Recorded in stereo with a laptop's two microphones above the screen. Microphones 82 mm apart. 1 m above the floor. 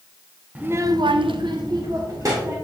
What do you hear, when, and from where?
0.6 s a child speaking: 20° right (ahead or behind), 0.9 m; by 2.5 s 40° right (ahead or behind), 2 m